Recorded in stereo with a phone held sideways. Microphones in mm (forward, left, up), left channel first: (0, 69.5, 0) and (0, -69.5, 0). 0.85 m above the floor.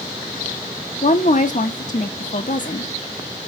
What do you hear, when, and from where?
1.0 s a woman speaking: 60° left (ahead or behind), 0.7 m